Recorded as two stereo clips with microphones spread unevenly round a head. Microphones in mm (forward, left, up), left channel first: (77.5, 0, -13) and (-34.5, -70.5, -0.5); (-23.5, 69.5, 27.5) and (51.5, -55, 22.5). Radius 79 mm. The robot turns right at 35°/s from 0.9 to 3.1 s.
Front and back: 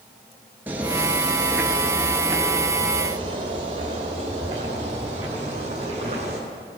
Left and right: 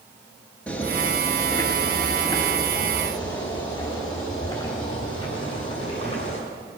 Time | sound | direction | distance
0.7 | footsteps | straight behind | 1.6 m